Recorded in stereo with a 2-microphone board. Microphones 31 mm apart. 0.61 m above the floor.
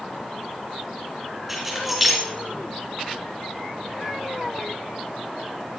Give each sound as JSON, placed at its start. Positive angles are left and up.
{"t": 1.5, "sound": "keys jangling", "side_deg": 0, "distance_m": 4.5}